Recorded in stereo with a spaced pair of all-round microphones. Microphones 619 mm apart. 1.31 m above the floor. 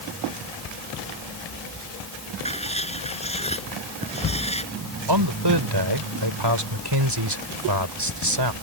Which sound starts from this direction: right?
A man speaking, at 5.1 s.